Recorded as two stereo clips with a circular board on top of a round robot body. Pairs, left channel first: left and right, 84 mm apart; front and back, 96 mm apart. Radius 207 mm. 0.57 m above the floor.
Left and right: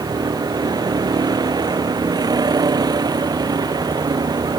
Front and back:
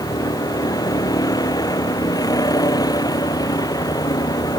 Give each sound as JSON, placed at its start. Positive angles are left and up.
{"t": 0.0, "sound": "a vehicle", "azimuth_deg": -50}